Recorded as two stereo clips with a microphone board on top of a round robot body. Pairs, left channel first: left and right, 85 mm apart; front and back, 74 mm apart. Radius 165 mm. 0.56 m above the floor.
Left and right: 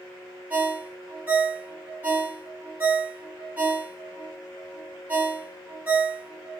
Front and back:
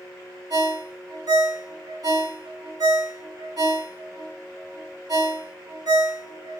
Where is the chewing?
I don't hear chewing.